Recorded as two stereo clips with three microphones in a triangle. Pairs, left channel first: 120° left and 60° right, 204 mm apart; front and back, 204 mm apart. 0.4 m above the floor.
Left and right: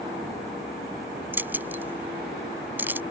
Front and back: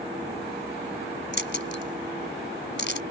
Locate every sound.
1.3 s keys jangling: 20° left